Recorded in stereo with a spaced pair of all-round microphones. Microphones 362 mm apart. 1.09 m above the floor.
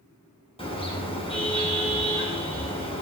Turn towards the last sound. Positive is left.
turn(degrees=15)  # may be behind; listen again after turning